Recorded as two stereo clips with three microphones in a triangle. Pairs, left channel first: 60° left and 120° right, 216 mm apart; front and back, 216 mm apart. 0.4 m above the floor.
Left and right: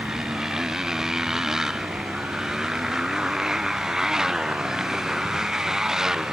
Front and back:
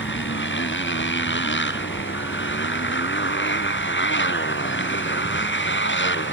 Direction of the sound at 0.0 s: 35° right.